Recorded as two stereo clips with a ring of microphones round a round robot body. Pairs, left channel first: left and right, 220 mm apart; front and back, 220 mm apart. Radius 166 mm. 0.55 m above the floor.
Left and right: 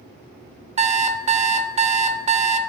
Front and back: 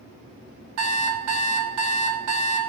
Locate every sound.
0.8 s an alarm clock: 155° right, 0.7 m